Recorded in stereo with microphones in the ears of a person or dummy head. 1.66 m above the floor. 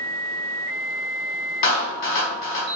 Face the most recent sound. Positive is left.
turn(degrees=55)  # may be behind; listen again after turning